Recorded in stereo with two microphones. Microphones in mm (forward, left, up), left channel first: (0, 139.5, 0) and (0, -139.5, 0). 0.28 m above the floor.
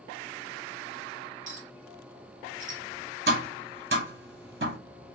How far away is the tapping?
About 1.0 m.